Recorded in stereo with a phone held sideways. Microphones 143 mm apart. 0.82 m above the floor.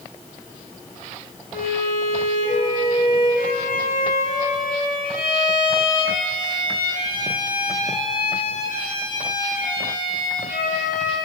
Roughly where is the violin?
Left.